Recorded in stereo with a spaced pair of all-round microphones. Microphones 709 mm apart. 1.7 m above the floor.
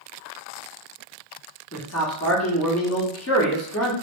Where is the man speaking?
20° left (ahead or behind), 0.9 m.